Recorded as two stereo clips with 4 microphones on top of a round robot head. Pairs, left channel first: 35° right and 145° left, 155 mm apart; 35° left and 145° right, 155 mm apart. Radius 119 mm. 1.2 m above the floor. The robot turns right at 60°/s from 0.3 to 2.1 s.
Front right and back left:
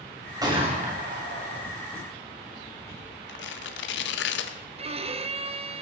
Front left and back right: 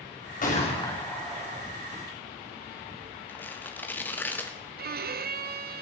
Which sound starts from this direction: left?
A gunshot, at 0.4 s.